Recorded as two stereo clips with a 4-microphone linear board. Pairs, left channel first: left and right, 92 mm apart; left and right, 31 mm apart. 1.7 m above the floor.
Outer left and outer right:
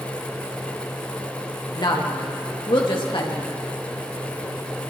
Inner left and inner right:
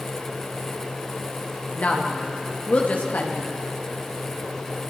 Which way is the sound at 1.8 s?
55° left (ahead or behind).